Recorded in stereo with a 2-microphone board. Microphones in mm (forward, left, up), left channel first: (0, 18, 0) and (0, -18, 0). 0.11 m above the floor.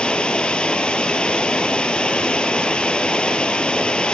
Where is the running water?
25° left (ahead or behind), 1.1 m.